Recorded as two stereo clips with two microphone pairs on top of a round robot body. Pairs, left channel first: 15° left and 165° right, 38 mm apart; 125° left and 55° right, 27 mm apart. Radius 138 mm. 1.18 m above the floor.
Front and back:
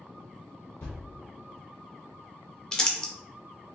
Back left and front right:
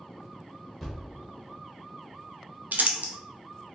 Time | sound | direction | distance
0.8 | a thud | 45° left | 0.6 m
2.7 | crumpling | 60° right | 0.6 m